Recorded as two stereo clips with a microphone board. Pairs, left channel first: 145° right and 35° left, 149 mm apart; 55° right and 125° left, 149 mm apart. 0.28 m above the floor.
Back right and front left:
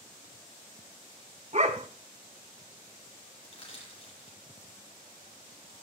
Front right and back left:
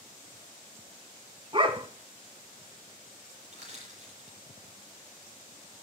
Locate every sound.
1.5 s a dog barking: 70° left, 1.1 m
3.4 s crushing: 160° left, 8 m